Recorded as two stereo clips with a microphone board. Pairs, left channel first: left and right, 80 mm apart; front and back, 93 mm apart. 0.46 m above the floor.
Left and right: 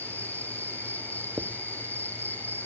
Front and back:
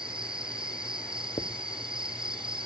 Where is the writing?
20° right.